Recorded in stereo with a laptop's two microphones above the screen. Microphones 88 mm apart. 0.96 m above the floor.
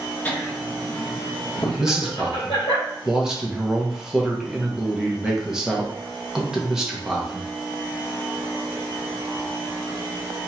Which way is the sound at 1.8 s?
5° right (ahead or behind).